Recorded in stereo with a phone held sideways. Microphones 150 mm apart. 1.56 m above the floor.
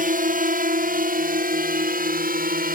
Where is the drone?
70° right (ahead or behind); by 2.8 s 80° right.